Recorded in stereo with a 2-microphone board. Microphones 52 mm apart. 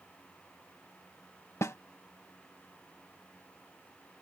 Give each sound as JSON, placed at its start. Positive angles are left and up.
{"t": 1.6, "sound": "a snare drum", "side_deg": 70}